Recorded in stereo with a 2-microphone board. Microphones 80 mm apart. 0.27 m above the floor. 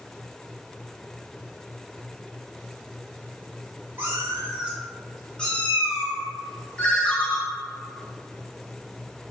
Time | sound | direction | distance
4.0 | a cat meowing | 30° right (ahead or behind) | 1.2 m
6.8 | a ringtone | 15° left (ahead or behind) | 0.6 m